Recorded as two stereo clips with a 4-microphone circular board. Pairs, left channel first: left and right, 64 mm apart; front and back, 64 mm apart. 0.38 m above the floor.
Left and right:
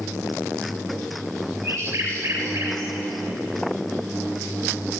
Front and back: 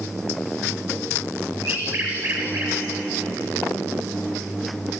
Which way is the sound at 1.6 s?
140° right.